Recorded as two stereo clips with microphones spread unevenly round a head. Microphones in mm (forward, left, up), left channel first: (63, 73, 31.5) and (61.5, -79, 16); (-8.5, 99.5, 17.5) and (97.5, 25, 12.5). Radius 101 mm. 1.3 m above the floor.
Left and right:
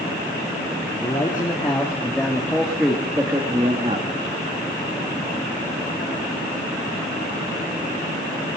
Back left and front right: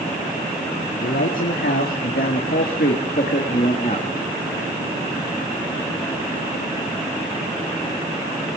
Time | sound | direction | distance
1.0 | a man speaking | 160° left | 2.5 m